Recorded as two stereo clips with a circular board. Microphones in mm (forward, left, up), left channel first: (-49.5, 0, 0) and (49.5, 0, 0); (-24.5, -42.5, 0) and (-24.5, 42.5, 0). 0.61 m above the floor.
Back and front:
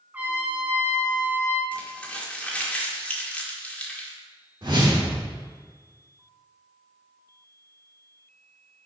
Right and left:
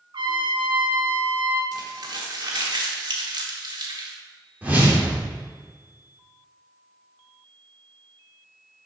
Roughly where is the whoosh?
Ahead left.